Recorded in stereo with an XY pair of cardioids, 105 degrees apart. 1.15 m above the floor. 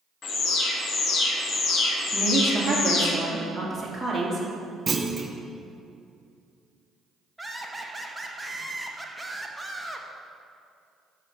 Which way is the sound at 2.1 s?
20° right.